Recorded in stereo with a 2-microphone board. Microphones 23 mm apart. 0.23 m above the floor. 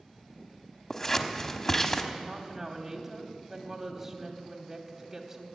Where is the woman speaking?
15° right (ahead or behind), 1.3 m.